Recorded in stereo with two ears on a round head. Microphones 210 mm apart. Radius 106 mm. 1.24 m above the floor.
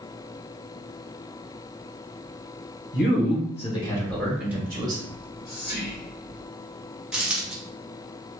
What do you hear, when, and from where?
2.9 s a man speaking: 50° left (ahead or behind), 1.3 m; by 5.0 s 20° right (ahead or behind), 1.4 m
5.1 s whispering: 45° left (ahead or behind), 1.5 m
7.1 s a dropped coin: 5° right (ahead or behind), 0.7 m